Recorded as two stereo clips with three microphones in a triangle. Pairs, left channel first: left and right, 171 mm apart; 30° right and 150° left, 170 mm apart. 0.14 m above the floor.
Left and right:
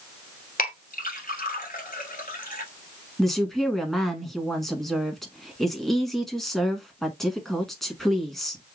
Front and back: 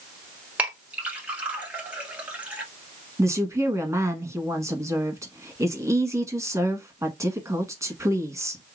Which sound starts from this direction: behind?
A woman speaking, at 3.2 s.